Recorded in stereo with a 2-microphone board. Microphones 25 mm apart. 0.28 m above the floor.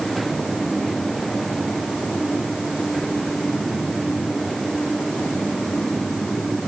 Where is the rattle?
No rattle in this recording.